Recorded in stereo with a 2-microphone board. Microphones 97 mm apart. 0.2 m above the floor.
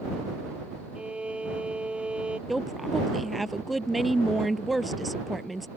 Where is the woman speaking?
Centre (ahead or behind).